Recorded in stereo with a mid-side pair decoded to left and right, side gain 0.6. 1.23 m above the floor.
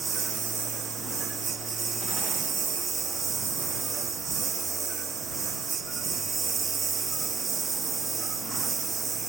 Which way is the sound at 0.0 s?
35° right.